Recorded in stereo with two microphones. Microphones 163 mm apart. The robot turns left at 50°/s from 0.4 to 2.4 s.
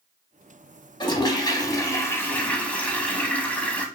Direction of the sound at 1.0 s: 30° left (ahead or behind).